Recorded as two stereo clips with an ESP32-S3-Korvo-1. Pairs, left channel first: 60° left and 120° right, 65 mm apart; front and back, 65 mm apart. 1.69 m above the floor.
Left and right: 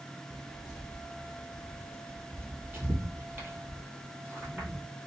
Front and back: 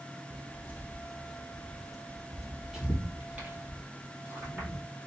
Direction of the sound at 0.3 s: 30° right.